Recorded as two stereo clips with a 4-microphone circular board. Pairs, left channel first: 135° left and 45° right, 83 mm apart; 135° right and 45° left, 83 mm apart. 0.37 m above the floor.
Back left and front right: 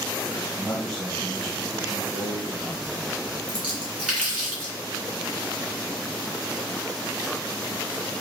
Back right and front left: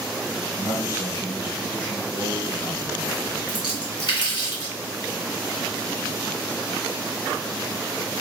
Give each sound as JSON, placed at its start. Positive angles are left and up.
{"t": 0.6, "sound": "a man speaking", "azimuth_deg": -145, "distance_m": 1.7}
{"t": 3.5, "sound": "a splash", "azimuth_deg": -120, "distance_m": 1.9}